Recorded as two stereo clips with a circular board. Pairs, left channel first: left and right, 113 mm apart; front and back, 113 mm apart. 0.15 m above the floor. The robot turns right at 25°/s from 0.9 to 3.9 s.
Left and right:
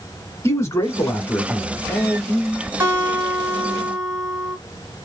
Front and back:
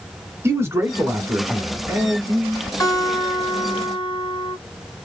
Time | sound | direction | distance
0.4 | a man speaking | 130° left | 1.3 m
2.8 | a guitar | 40° right | 2 m